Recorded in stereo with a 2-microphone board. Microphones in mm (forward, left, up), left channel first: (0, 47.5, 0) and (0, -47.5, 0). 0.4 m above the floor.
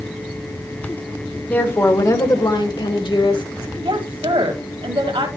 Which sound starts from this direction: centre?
A woman speaking, at 1.5 s.